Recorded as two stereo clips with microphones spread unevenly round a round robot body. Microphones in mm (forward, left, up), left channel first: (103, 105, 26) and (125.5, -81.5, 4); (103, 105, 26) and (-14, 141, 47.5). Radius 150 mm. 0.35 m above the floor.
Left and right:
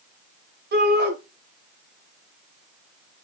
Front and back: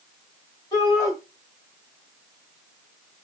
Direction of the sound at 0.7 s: 75° right.